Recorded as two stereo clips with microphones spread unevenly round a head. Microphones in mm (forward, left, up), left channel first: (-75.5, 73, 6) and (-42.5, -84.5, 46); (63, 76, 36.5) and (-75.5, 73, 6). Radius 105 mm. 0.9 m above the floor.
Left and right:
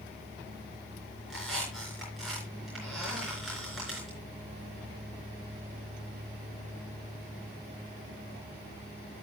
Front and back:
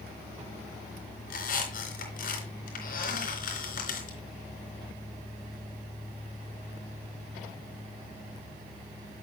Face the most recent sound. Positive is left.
turn(degrees=10)